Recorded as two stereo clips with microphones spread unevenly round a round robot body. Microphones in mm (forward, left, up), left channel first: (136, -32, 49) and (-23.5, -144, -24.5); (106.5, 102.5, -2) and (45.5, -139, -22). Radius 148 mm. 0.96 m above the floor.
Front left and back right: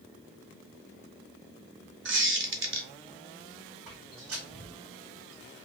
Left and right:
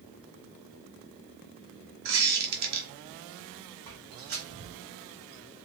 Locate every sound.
2.0 s a squeak: 115° right, 1.3 m
3.9 s footsteps: 145° right, 2.5 m; by 5.6 s 125° right, 1.7 m